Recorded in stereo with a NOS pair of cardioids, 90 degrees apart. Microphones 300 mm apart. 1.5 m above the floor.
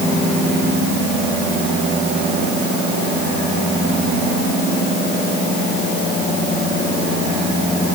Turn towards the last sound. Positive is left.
No sound to turn to.